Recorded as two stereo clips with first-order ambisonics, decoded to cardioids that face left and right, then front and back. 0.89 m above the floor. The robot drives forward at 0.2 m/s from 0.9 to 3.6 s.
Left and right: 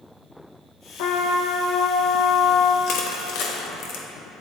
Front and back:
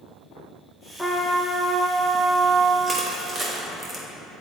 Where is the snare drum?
I don't hear a snare drum.